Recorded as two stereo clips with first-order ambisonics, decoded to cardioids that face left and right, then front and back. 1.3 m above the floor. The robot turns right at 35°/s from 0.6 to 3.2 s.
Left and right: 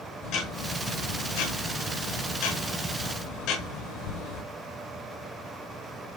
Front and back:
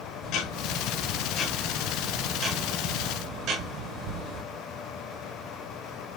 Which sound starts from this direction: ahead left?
Ticking, at 0.2 s.